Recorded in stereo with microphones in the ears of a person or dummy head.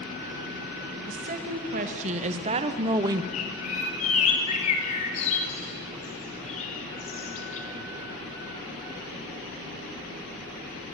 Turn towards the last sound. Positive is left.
turn(degrees=40)  # may be behind; listen again after turning